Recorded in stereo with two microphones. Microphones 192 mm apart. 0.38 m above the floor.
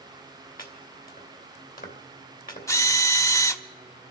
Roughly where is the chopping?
Left.